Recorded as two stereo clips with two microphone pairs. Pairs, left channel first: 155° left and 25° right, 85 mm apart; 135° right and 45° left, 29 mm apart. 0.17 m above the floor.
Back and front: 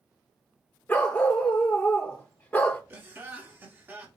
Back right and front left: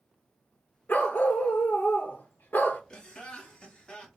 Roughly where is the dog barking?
Behind right.